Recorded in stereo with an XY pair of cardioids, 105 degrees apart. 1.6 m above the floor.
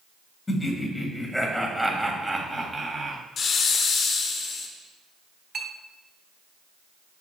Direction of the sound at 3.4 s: 55° left.